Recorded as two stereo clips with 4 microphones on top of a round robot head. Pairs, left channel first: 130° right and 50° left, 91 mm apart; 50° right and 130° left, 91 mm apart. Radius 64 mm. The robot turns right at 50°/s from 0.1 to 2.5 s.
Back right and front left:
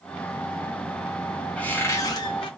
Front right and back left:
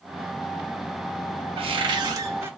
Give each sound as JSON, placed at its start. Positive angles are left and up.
{"t": 1.6, "sound": "a cupboard door", "azimuth_deg": 150, "distance_m": 0.6}